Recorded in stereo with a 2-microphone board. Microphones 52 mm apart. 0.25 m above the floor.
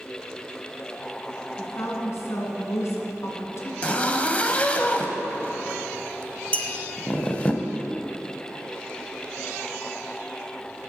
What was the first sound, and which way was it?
A woman speaking, 60° left (ahead or behind).